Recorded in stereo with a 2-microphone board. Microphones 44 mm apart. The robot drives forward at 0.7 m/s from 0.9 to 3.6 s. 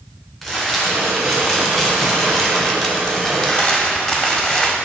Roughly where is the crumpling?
Centre.